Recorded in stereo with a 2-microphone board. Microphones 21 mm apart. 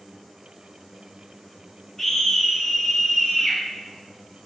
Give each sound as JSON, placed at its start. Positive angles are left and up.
{"t": 2.0, "sound": "a scream", "side_deg": 30, "distance_m": 1.4}